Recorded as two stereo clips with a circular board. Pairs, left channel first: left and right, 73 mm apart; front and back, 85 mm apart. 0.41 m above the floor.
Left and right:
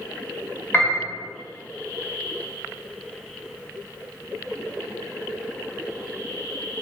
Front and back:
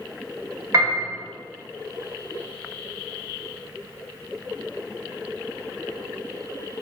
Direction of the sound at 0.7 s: 145° left.